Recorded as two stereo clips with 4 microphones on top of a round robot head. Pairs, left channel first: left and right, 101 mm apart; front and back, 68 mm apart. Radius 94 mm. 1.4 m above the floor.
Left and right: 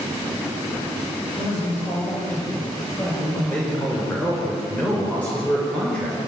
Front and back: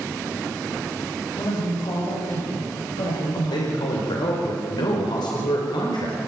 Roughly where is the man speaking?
Ahead.